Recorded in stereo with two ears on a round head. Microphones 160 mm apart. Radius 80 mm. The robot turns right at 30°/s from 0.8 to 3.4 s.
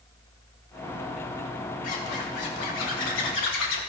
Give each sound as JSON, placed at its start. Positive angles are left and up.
{"t": 1.8, "sound": "a zipper", "azimuth_deg": 50, "distance_m": 3.0}